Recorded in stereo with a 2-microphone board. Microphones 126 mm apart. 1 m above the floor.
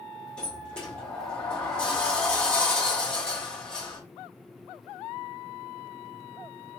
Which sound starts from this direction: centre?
A sliding door, at 0.4 s.